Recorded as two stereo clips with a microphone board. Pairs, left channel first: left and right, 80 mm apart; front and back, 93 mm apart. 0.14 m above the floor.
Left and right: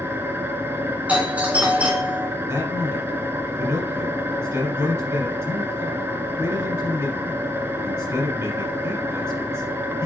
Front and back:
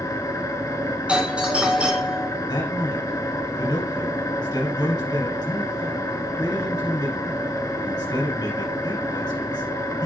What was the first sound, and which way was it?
An engine running, 40° right.